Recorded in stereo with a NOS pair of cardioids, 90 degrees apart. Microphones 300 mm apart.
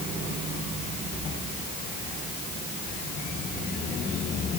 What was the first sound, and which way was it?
Only background noise.